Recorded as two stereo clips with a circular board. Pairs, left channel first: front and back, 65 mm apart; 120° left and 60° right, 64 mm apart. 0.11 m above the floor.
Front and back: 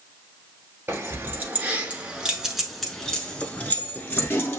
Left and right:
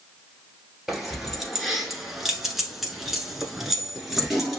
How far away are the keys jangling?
About 1.5 m.